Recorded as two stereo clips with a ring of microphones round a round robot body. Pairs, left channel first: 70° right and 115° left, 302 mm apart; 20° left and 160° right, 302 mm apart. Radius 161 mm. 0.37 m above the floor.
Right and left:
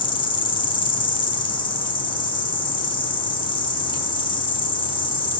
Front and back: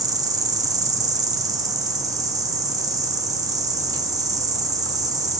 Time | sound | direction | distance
0.0 | an insect | 105° right | 0.8 m